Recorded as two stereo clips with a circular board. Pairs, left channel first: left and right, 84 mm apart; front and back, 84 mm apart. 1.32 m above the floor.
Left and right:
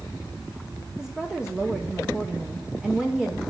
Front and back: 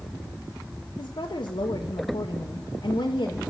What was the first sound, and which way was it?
A woman speaking, 10° right.